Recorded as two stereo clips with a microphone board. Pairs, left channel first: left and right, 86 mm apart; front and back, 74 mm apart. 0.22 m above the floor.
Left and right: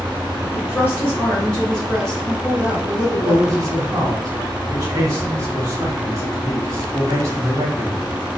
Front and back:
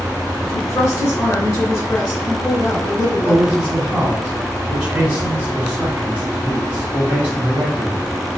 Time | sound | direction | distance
0.5 | a woman speaking | 45° left | 1.9 m
3.2 | a man speaking | 115° right | 1.4 m